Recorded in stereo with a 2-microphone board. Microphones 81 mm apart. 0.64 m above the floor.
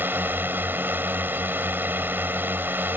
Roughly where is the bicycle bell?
No bicycle bell in this recording.